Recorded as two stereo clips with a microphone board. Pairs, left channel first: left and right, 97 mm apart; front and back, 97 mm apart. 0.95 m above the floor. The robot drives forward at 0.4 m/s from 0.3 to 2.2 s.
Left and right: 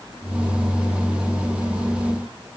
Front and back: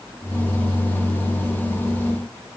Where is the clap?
I don't hear a clap.